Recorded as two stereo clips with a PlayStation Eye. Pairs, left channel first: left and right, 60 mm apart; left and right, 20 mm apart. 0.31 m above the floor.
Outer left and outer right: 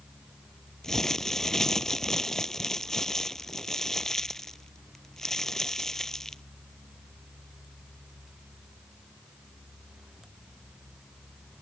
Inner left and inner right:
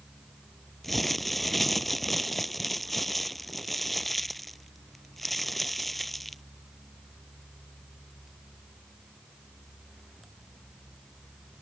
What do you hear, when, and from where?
0.8 s crumpling: 5° left (ahead or behind)